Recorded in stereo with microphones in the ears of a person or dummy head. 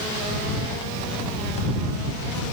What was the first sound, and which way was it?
Only background noise.